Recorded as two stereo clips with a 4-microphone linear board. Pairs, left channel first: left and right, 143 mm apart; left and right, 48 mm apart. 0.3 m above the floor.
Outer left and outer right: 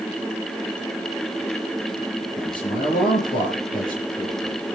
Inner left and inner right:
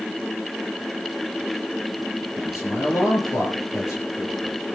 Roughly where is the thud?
No thud in this recording.